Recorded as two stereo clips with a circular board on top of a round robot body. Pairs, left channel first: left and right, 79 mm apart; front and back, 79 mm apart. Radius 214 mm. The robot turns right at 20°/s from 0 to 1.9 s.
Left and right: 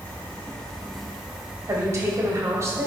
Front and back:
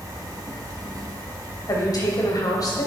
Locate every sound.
0.0 s an insect: 155° left, 1.4 m; by 2.9 s 165° right, 1.4 m
1.7 s a woman speaking: 40° right, 3 m; by 2.9 s 35° right, 3 m